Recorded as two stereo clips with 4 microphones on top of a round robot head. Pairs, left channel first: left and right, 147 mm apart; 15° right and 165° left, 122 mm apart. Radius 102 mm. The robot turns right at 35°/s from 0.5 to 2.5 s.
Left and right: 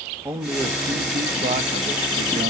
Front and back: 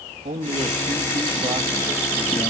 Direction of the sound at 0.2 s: 160° right.